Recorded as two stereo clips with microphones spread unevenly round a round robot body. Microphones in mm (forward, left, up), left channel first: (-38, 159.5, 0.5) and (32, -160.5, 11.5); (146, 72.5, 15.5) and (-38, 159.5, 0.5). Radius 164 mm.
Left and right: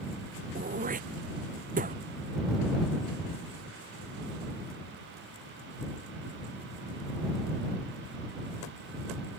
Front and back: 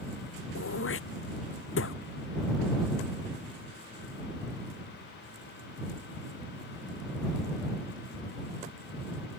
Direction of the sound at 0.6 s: 10° right.